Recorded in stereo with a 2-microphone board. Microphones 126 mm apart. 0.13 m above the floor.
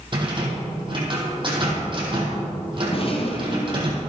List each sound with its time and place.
0.1 s a rattle: 40° right (ahead or behind), 4 m
2.9 s a rattle: 50° left (ahead or behind), 2 m